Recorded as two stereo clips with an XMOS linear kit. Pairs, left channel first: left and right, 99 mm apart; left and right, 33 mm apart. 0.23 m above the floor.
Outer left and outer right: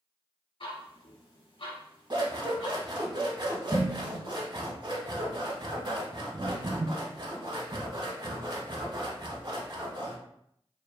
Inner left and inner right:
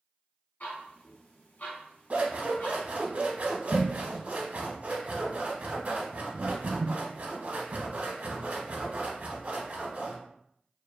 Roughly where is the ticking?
Left.